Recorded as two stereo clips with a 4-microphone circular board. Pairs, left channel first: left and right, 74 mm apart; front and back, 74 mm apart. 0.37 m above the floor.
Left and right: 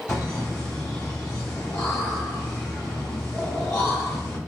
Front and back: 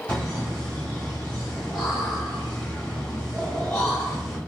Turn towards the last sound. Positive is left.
turn(degrees=70)